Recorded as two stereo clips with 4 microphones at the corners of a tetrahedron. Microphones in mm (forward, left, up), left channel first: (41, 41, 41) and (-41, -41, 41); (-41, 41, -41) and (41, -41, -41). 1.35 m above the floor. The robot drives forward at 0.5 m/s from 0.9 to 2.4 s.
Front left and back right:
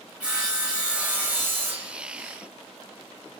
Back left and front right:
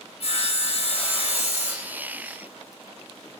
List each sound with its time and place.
0.2 s sawing: 150° left, 1.2 m; by 1.9 s 160° left, 1.6 m